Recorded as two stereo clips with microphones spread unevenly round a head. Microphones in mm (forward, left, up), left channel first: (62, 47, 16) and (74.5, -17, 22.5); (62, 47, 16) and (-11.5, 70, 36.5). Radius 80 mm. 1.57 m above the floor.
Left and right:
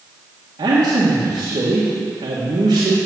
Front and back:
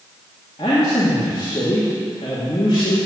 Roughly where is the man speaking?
Right.